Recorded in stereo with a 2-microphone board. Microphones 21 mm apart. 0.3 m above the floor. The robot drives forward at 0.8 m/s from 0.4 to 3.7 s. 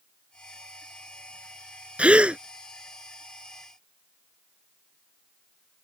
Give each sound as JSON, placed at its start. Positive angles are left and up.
{"t": 2.0, "sound": "a gasp", "side_deg": -85}